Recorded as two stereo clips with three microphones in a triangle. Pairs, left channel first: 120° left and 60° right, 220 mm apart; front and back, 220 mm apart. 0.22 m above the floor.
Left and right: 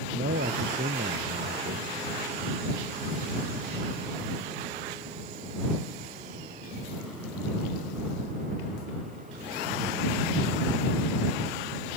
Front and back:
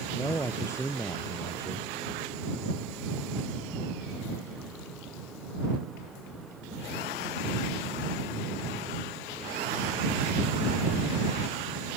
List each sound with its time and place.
0.1 s a man speaking: 75° right